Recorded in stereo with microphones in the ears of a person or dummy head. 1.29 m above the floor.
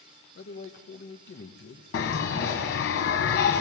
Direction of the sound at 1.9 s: 50° left (ahead or behind).